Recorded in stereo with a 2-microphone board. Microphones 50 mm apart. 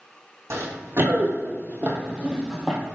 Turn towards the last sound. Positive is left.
turn(degrees=5)  # may be behind; listen again after turning